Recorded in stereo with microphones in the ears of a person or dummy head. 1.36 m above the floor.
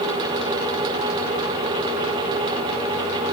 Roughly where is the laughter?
No laughter in this recording.